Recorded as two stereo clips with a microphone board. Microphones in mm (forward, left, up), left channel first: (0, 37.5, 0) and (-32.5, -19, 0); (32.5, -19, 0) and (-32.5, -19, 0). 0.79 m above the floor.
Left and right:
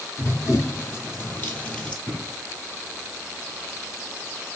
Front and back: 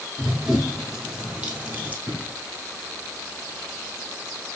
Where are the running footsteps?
95° left, 1.6 m; by 2.0 s 125° left, 1.0 m.